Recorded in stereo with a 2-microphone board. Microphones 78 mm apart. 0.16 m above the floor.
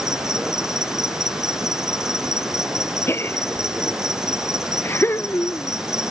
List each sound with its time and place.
0.0 s an insect: 10° right (ahead or behind)
3.1 s a gasp: 30° left (ahead or behind)